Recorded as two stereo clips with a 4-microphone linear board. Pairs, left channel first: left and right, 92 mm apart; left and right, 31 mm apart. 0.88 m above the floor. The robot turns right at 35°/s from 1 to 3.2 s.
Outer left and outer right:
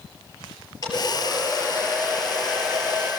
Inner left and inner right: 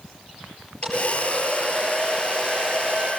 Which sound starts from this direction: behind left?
A hair dryer, at 0.8 s.